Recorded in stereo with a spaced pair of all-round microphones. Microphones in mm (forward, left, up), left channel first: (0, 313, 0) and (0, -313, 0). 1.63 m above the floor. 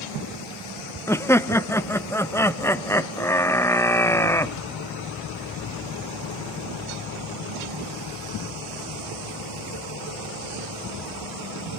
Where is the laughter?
5° left (ahead or behind), 0.7 m.